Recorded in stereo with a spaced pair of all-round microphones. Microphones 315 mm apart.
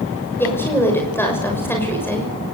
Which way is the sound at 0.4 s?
5° left (ahead or behind).